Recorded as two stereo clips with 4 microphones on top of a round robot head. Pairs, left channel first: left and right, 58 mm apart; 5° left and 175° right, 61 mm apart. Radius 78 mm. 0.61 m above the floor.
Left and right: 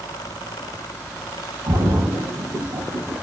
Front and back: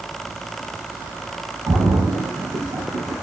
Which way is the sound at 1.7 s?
130° right.